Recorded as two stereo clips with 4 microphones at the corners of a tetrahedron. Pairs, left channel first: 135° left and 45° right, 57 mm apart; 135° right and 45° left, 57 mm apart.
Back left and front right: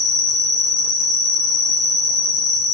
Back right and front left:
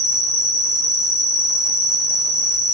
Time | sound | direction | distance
0.0 | an insect | 135° right | 0.8 m